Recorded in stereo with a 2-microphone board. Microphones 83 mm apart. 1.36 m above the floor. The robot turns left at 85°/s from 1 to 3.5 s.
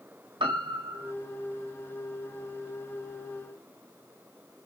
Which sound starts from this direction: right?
A piano, at 0.4 s.